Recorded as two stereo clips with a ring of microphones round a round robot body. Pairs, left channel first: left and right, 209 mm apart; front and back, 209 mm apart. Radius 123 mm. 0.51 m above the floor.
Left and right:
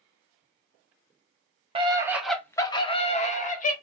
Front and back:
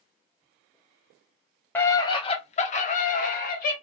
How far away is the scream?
About 0.7 m.